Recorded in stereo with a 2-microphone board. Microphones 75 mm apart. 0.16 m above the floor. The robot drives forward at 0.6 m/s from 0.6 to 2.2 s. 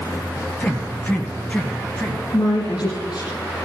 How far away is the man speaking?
About 2 m.